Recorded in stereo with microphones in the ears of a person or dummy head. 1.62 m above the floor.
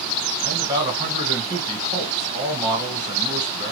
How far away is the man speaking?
About 1.5 m.